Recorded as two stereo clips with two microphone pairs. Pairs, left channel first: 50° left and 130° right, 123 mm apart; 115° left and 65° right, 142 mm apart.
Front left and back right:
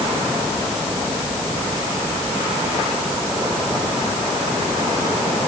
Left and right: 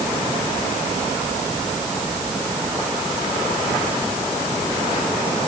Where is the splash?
No splash in this recording.